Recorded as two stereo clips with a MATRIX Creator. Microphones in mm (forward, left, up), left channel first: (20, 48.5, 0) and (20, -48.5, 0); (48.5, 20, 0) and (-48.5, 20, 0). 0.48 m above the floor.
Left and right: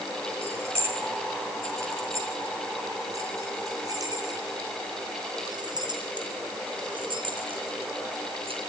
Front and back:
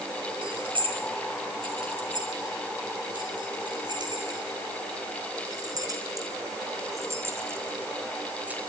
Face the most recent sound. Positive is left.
turn(degrees=-105)